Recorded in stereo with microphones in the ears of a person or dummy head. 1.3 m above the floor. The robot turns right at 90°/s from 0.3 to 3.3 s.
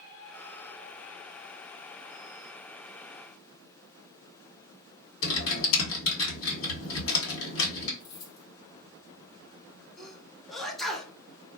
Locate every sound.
5.2 s typing on a keyboard: 85° left, 1.4 m
8.0 s keys jangling: 65° left (ahead or behind), 1.3 m
10.0 s a sneeze: 5° left (ahead or behind), 0.8 m